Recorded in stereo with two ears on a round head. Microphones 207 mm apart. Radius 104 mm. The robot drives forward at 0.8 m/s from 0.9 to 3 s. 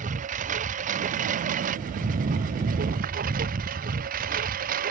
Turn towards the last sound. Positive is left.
turn(degrees=-40)  # may be behind; listen again after turning